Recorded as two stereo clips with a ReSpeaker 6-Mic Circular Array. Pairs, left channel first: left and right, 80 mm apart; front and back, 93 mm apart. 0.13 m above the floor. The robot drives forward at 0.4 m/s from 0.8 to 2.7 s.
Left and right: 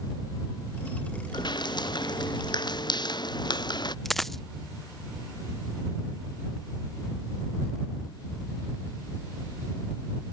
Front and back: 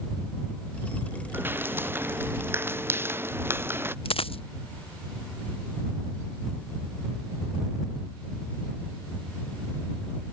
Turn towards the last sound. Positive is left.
turn(degrees=5)